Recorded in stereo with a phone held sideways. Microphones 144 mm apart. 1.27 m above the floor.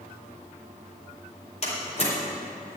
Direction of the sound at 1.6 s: 50° left (ahead or behind).